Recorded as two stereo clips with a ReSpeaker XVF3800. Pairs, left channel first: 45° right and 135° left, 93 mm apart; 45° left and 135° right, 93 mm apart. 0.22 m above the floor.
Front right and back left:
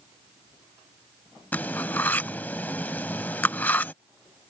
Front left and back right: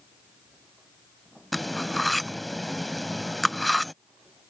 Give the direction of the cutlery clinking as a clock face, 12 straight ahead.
1 o'clock.